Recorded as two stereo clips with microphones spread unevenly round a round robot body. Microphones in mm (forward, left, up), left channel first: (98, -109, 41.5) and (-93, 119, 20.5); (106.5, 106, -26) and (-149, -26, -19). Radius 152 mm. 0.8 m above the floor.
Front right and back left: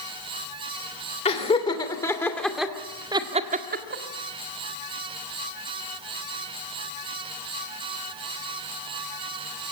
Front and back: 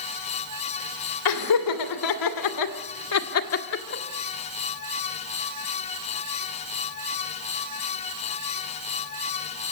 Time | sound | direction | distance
1.2 | laughter | 20° left | 3 m